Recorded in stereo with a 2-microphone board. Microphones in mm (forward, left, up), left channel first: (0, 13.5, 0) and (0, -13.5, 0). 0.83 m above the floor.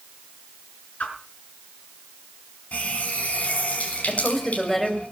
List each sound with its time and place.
1.0 s a whoosh: 75° left (ahead or behind), 5 m
2.7 s a running tap: 60° left (ahead or behind), 5 m
4.1 s a woman speaking: 10° left (ahead or behind), 4.5 m